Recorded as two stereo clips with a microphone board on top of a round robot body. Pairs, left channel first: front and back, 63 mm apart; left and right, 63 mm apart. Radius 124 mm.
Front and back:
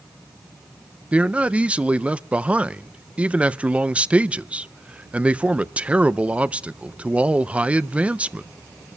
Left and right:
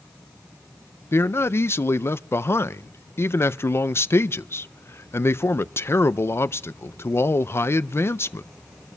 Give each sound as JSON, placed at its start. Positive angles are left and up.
{"t": 1.1, "sound": "a man speaking", "azimuth_deg": 115, "distance_m": 0.5}